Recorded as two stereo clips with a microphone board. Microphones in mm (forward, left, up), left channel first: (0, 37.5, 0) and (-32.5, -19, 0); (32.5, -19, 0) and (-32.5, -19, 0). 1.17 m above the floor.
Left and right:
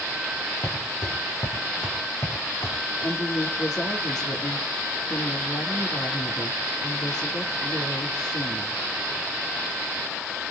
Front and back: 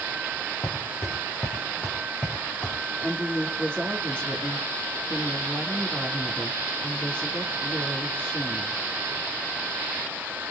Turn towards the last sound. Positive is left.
turn(degrees=70)